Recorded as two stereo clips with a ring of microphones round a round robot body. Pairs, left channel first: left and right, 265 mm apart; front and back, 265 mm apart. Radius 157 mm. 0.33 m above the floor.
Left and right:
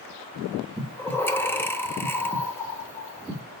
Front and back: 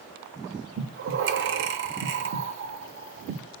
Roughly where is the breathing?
Behind.